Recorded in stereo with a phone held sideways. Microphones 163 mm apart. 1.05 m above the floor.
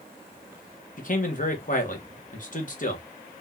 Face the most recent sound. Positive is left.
turn(degrees=55)  # may be behind; listen again after turning